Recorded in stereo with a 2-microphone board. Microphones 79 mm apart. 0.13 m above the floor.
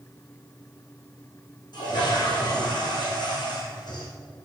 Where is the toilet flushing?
60° left (ahead or behind), 5.5 m.